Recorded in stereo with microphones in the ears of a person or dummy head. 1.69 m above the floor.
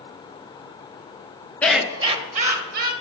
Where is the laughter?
5° left (ahead or behind), 0.9 m; by 2.9 s 50° right (ahead or behind), 2 m.